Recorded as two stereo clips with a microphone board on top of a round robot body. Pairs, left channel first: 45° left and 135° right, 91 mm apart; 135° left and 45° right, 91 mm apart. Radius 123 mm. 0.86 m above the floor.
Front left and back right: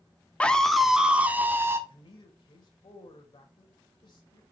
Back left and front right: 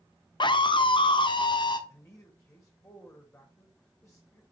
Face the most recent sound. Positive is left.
turn(degrees=65)